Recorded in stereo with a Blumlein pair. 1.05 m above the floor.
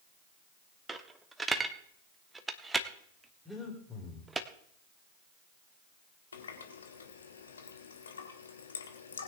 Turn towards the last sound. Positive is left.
turn(degrees=70)